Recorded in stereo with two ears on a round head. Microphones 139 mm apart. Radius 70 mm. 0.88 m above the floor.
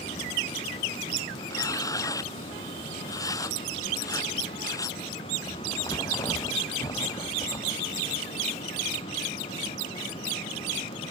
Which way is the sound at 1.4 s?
25° left (ahead or behind).